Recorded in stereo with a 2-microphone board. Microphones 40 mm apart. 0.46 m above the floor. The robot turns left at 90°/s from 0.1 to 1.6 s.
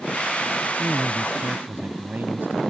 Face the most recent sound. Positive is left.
turn(degrees=-60)